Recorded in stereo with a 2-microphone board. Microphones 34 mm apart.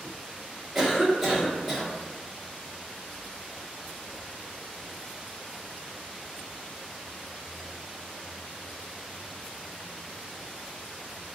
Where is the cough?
5° right (ahead or behind), 1.4 m.